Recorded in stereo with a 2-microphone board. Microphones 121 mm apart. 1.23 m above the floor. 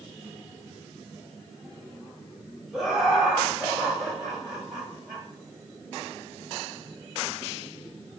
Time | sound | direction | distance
2.7 | laughter | 5° right (ahead or behind) | 4 m